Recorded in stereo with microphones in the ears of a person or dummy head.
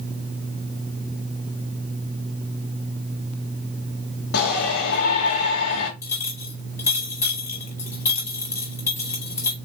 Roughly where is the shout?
Left.